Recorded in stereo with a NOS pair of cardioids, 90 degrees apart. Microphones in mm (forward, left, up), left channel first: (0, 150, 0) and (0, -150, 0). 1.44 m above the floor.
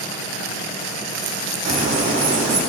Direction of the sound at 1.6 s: 60° right.